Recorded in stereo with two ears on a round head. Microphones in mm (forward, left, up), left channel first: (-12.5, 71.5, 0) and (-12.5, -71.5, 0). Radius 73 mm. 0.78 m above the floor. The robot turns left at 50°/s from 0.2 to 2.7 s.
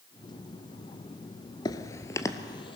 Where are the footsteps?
25° left (ahead or behind), 0.8 m; by 2.8 s 35° left (ahead or behind), 1.7 m.